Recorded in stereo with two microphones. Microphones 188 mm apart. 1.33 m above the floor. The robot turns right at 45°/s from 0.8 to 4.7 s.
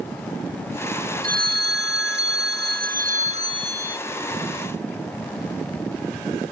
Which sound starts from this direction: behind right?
A phone ringing, at 1.2 s.